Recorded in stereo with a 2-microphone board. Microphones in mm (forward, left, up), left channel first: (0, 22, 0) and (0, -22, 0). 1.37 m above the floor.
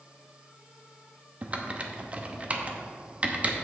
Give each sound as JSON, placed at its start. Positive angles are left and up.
{"t": 1.4, "sound": "typing on a keyboard", "side_deg": -35, "distance_m": 0.9}